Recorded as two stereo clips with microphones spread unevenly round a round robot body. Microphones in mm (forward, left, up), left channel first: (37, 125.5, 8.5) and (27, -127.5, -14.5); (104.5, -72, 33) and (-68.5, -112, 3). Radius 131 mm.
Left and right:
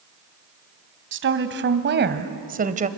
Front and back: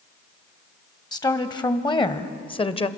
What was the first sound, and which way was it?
A woman speaking, 60° right.